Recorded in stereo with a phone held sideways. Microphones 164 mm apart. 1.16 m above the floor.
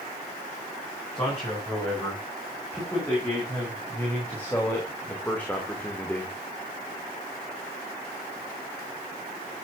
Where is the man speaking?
15° left (ahead or behind), 9.5 m; by 6.4 s 5° left (ahead or behind), 2.5 m.